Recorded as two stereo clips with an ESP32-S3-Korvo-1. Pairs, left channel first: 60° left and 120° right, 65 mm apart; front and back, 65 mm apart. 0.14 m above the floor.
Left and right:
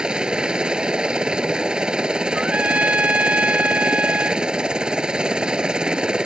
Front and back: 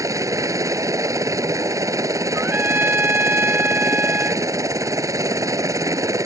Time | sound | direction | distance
0.0 | a helicopter | 165° left | ?
2.3 | a trumpet | 165° right | ?